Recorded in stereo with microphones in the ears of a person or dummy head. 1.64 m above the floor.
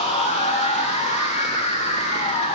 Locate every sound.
0.0 s a machine running: 35° left (ahead or behind), 1.0 m